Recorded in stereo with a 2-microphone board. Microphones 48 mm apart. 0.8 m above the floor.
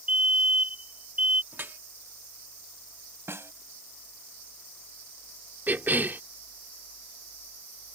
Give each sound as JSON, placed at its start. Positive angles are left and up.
{"t": 0.1, "sound": "a fire alarm", "side_deg": -30}
{"t": 1.5, "sound": "dripping", "side_deg": -50}
{"t": 3.3, "sound": "a snare drum", "side_deg": -65}
{"t": 5.7, "sound": "a cough", "side_deg": -45}